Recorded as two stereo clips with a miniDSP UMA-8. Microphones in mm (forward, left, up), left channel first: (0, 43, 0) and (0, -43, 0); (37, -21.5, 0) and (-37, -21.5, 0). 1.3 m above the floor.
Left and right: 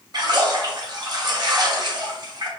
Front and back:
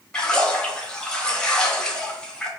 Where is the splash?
75° right, 0.9 m.